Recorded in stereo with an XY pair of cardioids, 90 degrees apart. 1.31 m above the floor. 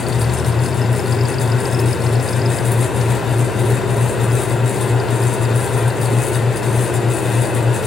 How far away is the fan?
About 4 m.